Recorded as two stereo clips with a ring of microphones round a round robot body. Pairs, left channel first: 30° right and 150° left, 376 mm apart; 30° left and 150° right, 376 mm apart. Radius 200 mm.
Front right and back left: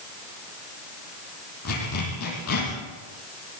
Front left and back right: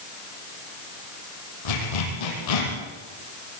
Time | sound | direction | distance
1.6 | a zipper | 25° left | 7.5 m